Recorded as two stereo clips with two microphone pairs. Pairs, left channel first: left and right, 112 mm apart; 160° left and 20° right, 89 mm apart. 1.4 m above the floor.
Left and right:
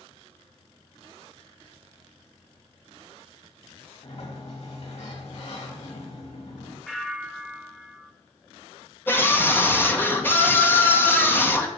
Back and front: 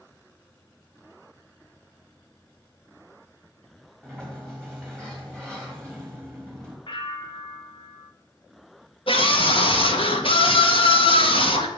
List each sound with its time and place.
4.0 s a sliding door: 80° left, 3 m
6.9 s a bell: straight behind, 1.1 m
9.1 s a scream: 165° left, 1.8 m